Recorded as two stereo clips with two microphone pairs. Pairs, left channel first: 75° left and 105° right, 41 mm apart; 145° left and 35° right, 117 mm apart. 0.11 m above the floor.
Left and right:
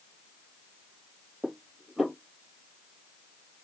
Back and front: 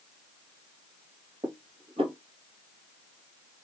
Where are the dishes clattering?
30° right, 1.6 m.